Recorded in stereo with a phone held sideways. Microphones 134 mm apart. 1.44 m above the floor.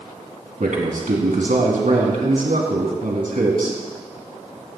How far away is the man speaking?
About 3 m.